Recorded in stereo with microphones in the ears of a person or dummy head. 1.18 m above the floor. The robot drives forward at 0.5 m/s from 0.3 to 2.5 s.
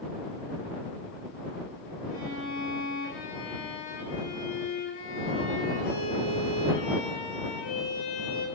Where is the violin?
70° left (ahead or behind), 7 m; by 8.4 s 65° left (ahead or behind), 7 m.